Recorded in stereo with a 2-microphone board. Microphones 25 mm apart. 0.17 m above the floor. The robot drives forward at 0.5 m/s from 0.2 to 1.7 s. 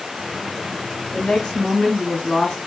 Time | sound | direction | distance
1.1 | a woman speaking | 30° left (ahead or behind) | 1.8 m